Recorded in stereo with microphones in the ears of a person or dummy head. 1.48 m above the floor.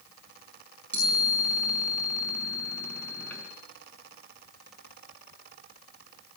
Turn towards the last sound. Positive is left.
turn(degrees=10)  # may be behind; listen again after turning